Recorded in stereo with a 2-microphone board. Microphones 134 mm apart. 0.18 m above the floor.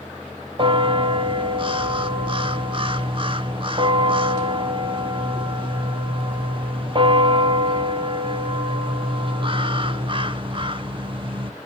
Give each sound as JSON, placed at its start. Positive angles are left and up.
{"t": 0.6, "sound": "a bell", "side_deg": -35, "distance_m": 0.5}